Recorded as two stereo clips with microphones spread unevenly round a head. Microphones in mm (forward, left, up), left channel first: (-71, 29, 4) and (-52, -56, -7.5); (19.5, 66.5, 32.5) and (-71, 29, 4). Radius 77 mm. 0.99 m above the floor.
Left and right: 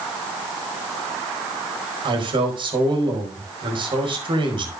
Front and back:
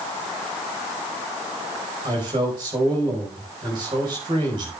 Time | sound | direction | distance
2.0 | a man speaking | 100° right | 4.5 m